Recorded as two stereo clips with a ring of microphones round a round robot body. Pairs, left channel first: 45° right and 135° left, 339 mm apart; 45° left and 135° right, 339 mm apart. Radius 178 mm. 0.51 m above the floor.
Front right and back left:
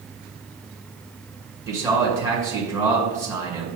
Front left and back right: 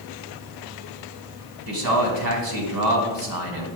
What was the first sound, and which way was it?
A man speaking, 145° right.